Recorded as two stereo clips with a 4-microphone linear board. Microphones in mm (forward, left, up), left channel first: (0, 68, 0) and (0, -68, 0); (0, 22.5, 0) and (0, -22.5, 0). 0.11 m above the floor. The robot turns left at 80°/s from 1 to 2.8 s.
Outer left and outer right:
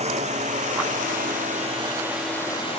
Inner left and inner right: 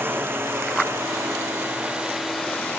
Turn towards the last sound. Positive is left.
turn(degrees=50)  # may be behind; listen again after turning